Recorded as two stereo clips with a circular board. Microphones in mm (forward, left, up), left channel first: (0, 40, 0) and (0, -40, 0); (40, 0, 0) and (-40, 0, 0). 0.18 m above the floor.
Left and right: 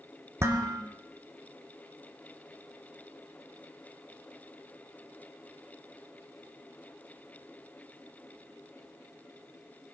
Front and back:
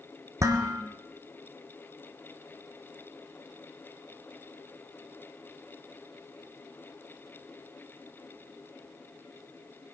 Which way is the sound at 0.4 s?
140° right.